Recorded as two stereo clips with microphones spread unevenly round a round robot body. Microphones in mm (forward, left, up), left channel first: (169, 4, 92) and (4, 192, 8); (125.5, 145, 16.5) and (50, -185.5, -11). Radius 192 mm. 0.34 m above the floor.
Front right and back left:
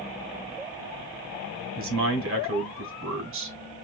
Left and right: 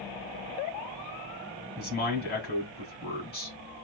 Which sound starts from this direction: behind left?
A man speaking, at 1.8 s.